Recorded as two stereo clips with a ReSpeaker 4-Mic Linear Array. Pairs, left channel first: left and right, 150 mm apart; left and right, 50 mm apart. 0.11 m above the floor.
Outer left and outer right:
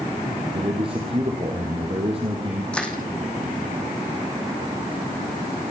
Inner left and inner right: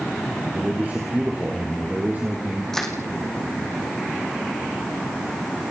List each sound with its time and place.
0.5 s a man speaking: 40° right (ahead or behind), 4 m
2.7 s crushing: 5° left (ahead or behind), 3.5 m